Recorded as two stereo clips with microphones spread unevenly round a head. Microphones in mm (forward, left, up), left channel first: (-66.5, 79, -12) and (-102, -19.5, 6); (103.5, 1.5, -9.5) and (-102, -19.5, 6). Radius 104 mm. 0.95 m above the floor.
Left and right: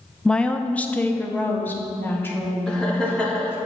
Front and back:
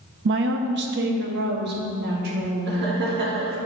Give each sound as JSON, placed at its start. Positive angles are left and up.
{"t": 0.2, "sound": "a woman speaking", "azimuth_deg": 150, "distance_m": 0.5}
{"t": 2.7, "sound": "laughter", "azimuth_deg": 145, "distance_m": 1.8}